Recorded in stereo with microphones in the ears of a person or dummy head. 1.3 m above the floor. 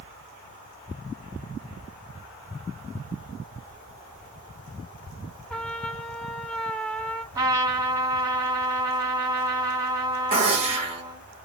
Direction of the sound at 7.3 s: 20° right (ahead or behind).